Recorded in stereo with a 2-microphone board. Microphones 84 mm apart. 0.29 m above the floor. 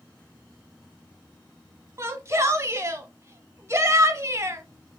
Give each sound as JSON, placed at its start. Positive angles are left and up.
{"t": 2.0, "sound": "a shout", "side_deg": -35, "distance_m": 1.1}